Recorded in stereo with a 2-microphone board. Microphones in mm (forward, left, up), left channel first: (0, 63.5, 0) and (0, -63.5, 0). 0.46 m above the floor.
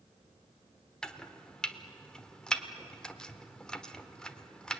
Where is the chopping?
5° left (ahead or behind), 1.2 m.